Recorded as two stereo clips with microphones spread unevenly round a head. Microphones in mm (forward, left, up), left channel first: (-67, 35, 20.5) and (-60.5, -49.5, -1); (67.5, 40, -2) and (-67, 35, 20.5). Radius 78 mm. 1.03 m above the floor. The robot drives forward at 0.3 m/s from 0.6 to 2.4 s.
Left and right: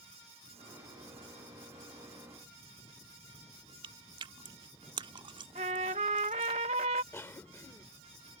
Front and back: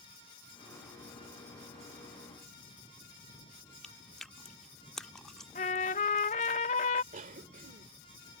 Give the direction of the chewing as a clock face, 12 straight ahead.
3 o'clock.